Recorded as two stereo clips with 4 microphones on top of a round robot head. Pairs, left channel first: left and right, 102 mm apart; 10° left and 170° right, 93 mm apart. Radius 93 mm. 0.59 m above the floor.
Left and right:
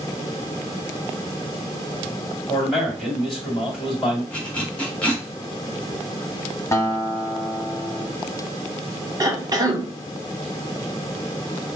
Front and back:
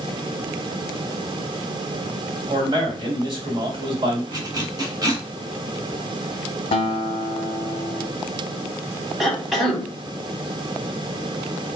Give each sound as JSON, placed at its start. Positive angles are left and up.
{"t": 2.5, "sound": "a man speaking", "azimuth_deg": 175, "distance_m": 1.9}
{"t": 4.3, "sound": "a zipper", "azimuth_deg": 165, "distance_m": 1.2}
{"t": 6.7, "sound": "a guitar", "azimuth_deg": 30, "distance_m": 0.6}
{"t": 9.2, "sound": "a cough", "azimuth_deg": -80, "distance_m": 1.1}